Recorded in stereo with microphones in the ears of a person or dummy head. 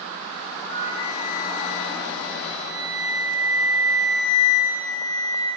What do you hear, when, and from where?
0.7 s a flute: 35° left (ahead or behind), 1.8 m